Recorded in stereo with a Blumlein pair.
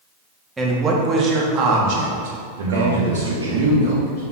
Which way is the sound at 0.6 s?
10° right.